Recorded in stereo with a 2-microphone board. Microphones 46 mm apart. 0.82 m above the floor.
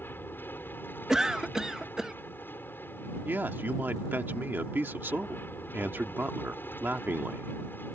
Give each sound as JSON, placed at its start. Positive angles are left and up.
{"t": 0.0, "sound": "an aircraft", "side_deg": 45}
{"t": 1.1, "sound": "a cough", "side_deg": -10}
{"t": 3.2, "sound": "a man speaking", "side_deg": -50}